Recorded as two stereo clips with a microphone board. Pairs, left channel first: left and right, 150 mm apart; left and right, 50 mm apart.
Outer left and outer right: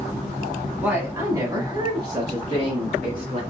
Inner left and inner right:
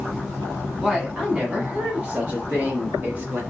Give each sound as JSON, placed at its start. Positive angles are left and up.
{"t": 0.8, "sound": "a woman speaking", "side_deg": -10, "distance_m": 1.3}